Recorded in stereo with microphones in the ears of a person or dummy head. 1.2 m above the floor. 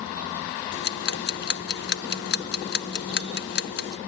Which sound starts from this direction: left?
Ticking, at 0.7 s.